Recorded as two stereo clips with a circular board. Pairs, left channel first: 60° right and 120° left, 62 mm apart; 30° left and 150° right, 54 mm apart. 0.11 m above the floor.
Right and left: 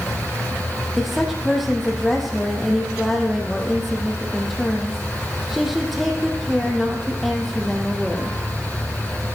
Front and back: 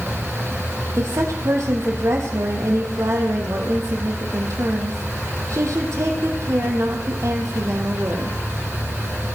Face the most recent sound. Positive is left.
turn(degrees=-150)